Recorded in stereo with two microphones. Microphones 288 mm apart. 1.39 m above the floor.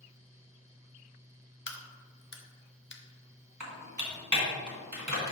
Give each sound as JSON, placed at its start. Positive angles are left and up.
{"t": 1.7, "sound": "a crack", "side_deg": 40, "distance_m": 0.8}
{"t": 3.6, "sound": "typing on a keyboard", "side_deg": -80, "distance_m": 1.7}